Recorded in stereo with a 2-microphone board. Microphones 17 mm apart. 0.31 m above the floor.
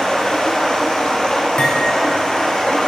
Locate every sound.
0.0 s running water: 55° left (ahead or behind), 4 m
1.6 s cutlery clinking: 80° left, 4 m